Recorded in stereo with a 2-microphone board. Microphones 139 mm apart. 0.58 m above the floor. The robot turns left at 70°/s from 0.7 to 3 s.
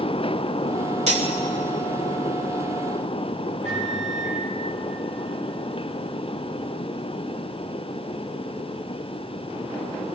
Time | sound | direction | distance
1.1 | cutlery clinking | 55° right (ahead or behind) | 1.3 m
3.6 | a microwave | 55° right (ahead or behind) | 5.5 m